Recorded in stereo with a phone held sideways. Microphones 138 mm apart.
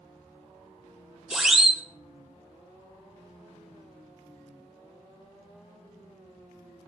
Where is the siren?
5° right (ahead or behind), 2.5 m.